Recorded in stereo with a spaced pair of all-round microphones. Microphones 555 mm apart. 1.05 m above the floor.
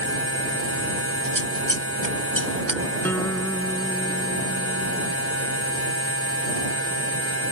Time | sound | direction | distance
0.0 | a machine running | 25° left (ahead or behind) | ?
1.2 | scissors | 35° right (ahead or behind) | ?
3.0 | a guitar | 5° left (ahead or behind) | ?